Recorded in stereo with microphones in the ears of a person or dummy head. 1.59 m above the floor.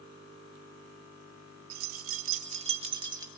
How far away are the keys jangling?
About 1.5 m.